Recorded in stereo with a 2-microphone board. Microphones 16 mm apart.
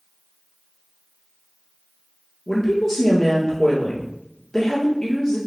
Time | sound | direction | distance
2.5 | a woman speaking | 50° left (ahead or behind) | 1.9 m